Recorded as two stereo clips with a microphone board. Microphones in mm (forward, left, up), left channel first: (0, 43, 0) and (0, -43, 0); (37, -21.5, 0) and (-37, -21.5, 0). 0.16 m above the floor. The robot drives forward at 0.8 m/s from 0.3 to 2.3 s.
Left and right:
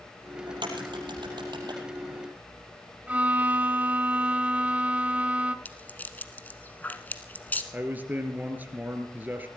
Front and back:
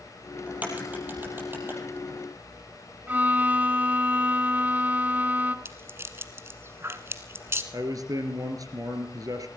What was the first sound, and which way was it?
A crack, 110° right.